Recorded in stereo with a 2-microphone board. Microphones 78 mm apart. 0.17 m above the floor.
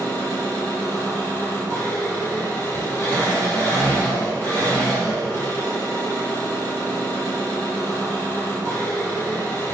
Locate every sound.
0.0 s an engine running: 30° left (ahead or behind), 1.9 m